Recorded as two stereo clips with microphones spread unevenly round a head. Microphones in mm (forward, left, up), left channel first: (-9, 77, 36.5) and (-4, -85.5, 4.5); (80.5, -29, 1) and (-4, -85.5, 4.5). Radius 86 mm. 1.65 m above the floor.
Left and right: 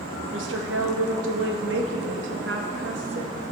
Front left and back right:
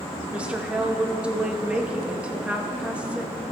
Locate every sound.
0.3 s a woman speaking: 70° right, 2 m